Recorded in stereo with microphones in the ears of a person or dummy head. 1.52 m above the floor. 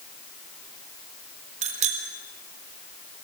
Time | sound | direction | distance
1.6 | a bicycle bell | 45° right (ahead or behind) | 4 m